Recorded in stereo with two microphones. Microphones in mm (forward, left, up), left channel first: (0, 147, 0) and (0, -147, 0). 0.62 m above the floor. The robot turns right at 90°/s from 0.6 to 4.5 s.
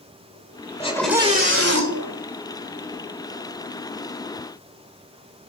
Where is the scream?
155° left, 2.5 m; by 2.2 s 75° right, 2.5 m.